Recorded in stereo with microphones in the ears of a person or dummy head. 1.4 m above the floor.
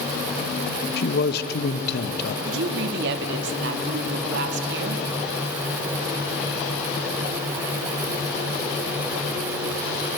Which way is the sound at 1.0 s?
55° left (ahead or behind).